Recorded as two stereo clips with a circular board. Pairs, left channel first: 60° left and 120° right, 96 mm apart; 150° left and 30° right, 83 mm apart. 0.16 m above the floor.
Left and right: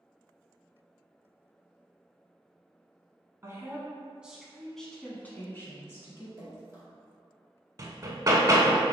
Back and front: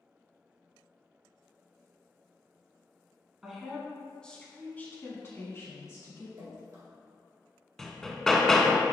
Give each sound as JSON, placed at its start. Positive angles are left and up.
{"t": 3.4, "sound": "a woman speaking", "azimuth_deg": -105, "distance_m": 1.1}
{"t": 6.4, "sound": "dripping", "azimuth_deg": -60, "distance_m": 1.9}
{"t": 7.8, "sound": "hammering", "azimuth_deg": -130, "distance_m": 0.5}